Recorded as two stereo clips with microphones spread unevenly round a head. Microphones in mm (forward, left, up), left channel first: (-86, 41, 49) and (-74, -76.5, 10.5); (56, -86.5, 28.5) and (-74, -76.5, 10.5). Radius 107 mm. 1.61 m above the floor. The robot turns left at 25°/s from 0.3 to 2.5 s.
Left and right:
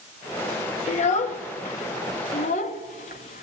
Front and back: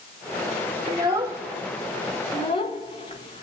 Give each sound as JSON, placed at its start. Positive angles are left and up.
{"t": 0.9, "sound": "a child speaking", "azimuth_deg": 100, "distance_m": 1.2}